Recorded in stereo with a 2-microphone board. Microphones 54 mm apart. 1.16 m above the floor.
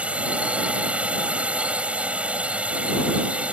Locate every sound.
0.0 s a drone: 25° right (ahead or behind)